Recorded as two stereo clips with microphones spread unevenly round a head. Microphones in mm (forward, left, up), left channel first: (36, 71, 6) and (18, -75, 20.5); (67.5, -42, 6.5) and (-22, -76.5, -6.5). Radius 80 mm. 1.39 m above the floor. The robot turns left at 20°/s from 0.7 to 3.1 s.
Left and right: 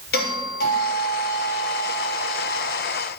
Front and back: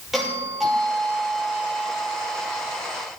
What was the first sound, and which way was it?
A doorbell, 110° left.